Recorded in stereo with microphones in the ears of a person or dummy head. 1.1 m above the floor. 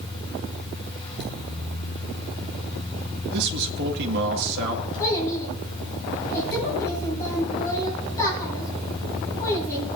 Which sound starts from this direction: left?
A fan, at 0.0 s.